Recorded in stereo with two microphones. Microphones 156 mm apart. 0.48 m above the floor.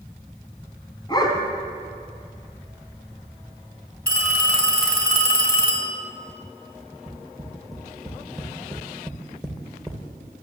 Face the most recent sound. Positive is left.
turn(degrees=5)  # may be behind; listen again after turning